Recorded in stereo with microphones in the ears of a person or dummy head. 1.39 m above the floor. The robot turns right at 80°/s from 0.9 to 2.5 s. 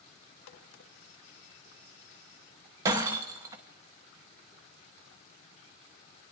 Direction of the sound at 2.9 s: 20° right (ahead or behind).